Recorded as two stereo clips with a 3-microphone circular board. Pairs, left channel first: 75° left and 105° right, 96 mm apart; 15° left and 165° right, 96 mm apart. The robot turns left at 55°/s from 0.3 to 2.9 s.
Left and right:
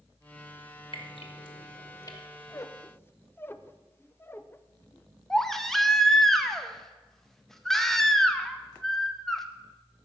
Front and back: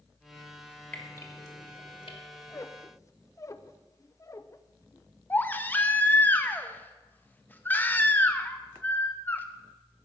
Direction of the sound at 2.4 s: 55° left.